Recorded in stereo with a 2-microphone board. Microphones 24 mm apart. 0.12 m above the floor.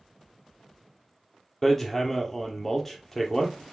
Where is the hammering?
15° left (ahead or behind), 2.5 m.